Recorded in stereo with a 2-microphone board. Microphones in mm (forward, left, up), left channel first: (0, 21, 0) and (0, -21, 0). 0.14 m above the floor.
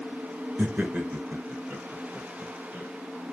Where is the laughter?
40° right (ahead or behind), 1.5 m; by 2.9 s 55° right (ahead or behind), 4.5 m.